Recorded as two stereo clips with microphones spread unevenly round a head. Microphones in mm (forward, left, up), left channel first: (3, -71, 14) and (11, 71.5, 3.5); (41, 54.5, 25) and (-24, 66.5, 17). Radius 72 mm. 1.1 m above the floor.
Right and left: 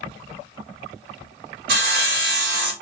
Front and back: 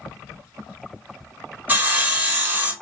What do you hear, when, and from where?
1.7 s sawing: 105° left, 1.0 m